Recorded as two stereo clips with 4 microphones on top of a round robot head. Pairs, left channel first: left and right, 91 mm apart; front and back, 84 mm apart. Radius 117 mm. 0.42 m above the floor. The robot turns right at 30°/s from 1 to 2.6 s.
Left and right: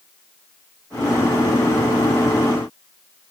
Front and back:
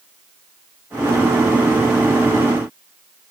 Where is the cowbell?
No cowbell in this recording.